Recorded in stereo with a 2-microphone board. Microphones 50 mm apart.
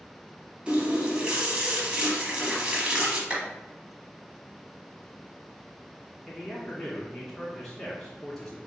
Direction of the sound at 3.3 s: 25° right (ahead or behind).